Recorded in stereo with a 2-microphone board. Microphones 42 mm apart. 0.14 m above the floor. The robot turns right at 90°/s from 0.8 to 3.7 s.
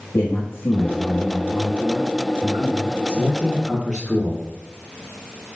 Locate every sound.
0.1 s a man speaking: 115° left, 3.5 m; by 3.0 s 50° right, 3.5 m
3.1 s a man speaking: 70° right, 4 m; by 4.5 s 15° right, 4 m